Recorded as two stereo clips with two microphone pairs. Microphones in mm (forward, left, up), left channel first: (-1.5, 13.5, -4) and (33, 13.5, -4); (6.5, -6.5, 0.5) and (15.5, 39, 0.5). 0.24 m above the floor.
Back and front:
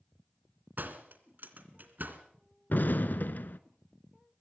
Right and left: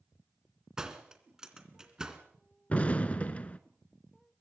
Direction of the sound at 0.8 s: 5° left.